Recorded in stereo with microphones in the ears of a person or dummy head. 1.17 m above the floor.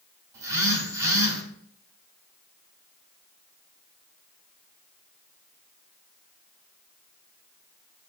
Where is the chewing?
I don't hear chewing.